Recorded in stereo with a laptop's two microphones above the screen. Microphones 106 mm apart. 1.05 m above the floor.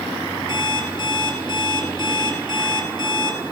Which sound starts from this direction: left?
An alarm clock, at 0.5 s.